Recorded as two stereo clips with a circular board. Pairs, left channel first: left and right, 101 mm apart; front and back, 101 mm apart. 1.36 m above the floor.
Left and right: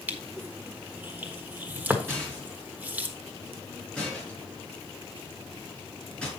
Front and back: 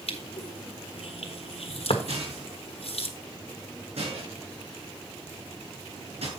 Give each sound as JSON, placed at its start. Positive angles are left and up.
{"t": 0.1, "sound": "crushing", "azimuth_deg": -15, "distance_m": 1.3}
{"t": 2.1, "sound": "a rattle", "azimuth_deg": 170, "distance_m": 5.0}